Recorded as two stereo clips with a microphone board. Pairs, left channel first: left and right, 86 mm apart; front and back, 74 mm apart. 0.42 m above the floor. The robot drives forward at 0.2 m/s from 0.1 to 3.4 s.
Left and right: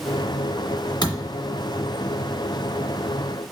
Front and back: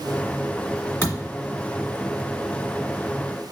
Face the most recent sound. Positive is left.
turn(degrees=70)